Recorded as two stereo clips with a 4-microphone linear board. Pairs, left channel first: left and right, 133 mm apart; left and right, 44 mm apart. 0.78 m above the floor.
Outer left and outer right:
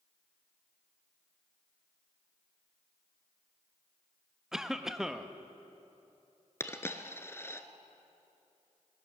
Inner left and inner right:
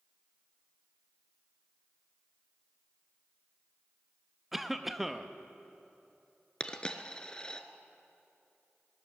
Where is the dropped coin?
20° left (ahead or behind), 0.8 m.